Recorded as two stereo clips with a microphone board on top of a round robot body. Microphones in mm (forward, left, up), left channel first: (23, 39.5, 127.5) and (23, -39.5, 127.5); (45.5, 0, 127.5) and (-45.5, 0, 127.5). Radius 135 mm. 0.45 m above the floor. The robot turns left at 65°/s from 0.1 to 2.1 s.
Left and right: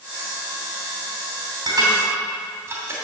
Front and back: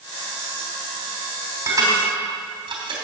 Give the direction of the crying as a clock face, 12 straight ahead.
No crying in this recording.